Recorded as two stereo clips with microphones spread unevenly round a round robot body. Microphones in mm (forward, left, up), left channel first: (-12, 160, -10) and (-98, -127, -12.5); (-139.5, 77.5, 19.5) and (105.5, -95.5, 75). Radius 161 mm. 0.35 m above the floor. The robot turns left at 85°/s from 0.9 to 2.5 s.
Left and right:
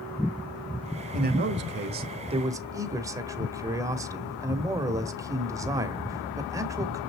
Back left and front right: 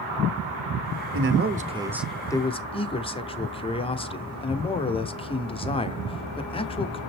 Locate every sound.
1.1 s a man speaking: 60° right, 1.0 m; by 7.0 s 175° right, 1.0 m